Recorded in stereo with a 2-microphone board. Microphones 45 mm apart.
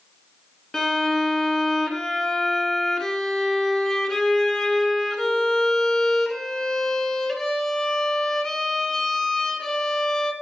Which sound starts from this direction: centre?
A violin, at 0.7 s.